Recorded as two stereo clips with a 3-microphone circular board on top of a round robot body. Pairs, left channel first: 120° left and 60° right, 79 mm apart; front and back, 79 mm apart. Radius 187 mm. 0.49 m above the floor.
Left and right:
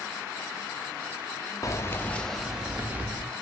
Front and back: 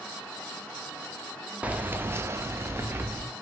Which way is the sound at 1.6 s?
115° left.